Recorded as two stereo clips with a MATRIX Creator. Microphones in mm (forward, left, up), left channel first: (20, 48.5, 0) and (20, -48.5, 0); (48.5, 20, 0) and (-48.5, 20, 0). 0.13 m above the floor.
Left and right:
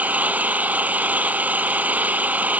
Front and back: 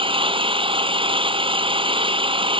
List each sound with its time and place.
0.0 s an engine running: 165° right